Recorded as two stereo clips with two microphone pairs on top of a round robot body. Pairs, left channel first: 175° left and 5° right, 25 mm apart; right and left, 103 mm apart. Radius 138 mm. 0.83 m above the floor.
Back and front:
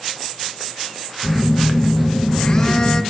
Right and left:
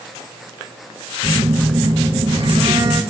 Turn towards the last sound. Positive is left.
turn(degrees=120)